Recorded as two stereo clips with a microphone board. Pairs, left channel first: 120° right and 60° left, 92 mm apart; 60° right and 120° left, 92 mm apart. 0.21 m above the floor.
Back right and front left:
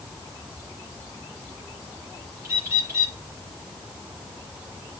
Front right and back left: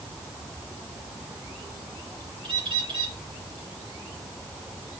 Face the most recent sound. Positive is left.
turn(degrees=120)